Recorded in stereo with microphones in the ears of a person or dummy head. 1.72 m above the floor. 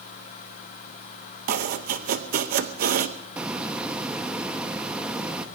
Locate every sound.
1.5 s chopping: 45° right (ahead or behind), 0.8 m
3.4 s a hiss: 10° right (ahead or behind), 1.2 m